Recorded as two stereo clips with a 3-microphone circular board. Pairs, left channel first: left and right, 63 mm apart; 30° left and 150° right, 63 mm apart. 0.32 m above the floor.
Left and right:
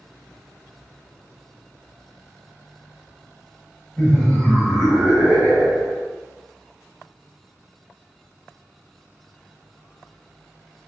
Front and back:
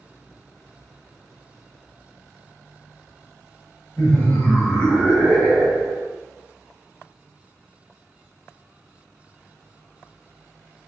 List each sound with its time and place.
4.0 s laughter: 40° left, 1.2 m; by 6.1 s 70° right, 1.3 m